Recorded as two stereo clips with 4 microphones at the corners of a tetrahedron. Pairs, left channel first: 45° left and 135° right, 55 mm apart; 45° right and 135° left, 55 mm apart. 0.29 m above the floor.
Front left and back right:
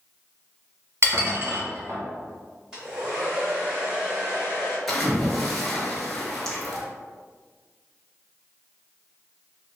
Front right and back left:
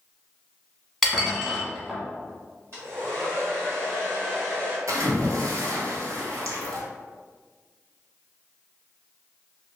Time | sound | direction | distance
1.0 | dishes clattering | 135° right | 1.1 m
2.7 | a hair dryer | 150° left | 1.8 m
4.9 | a splash | 130° left | 0.8 m